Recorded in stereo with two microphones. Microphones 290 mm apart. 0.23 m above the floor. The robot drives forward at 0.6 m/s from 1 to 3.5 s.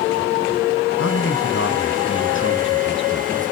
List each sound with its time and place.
1.0 s a man speaking: 50° left (ahead or behind), 2 m; by 3.4 s 35° left (ahead or behind), 2.5 m